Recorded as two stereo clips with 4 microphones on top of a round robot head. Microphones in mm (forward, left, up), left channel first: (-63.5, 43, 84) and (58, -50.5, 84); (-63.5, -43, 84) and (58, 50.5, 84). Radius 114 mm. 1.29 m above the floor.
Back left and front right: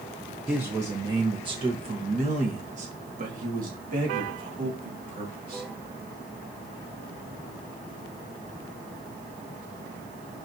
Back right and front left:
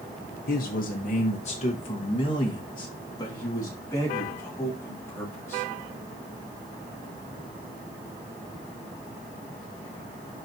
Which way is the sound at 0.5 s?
120° right.